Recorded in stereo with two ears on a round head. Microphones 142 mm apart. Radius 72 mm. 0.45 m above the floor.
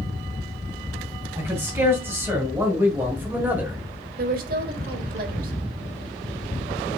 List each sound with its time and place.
1.4 s a man speaking: 15° right (ahead or behind), 3 m; by 3.8 s 10° right (ahead or behind), 1.6 m
4.2 s a woman speaking: 60° right (ahead or behind), 1.7 m